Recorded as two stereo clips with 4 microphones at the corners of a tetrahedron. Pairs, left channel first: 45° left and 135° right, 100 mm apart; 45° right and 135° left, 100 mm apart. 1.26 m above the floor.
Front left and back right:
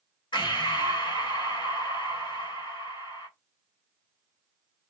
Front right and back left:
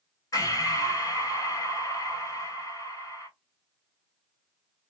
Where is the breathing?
10° left, 1.1 m.